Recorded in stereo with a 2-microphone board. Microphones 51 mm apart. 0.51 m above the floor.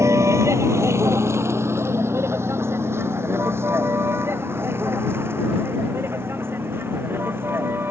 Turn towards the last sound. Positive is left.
turn(degrees=-50)  # may be behind; listen again after turning